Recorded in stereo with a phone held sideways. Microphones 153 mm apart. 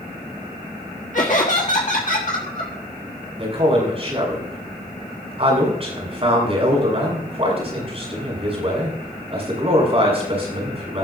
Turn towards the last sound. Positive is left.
turn(degrees=-40)  # may be behind; listen again after turning